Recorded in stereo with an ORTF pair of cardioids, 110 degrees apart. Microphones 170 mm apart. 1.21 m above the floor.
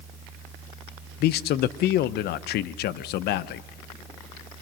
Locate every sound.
0.0 s a fan: 5° right, 2 m
1.2 s a man speaking: 70° left, 0.6 m